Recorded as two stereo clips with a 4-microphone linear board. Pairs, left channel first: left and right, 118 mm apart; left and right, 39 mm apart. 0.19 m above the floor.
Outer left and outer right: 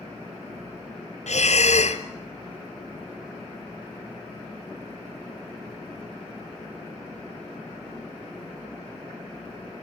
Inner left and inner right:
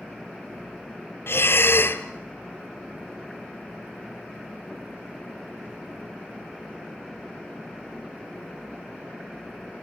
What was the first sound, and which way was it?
Breathing, 70° left (ahead or behind).